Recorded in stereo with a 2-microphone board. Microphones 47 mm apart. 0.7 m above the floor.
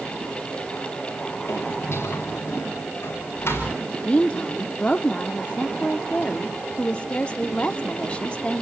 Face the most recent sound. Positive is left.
turn(degrees=25)  # may be behind; listen again after turning